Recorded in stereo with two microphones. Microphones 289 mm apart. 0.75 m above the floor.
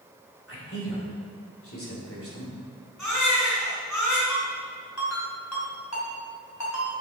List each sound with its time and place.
0.5 s a man speaking: 50° left (ahead or behind), 3 m
3.0 s a baby crying: 85° left, 3 m
4.3 s a ringtone: 70° left (ahead or behind), 3 m